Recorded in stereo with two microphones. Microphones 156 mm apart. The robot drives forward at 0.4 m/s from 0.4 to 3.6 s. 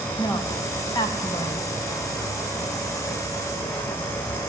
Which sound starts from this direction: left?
A woman speaking, at 0.2 s.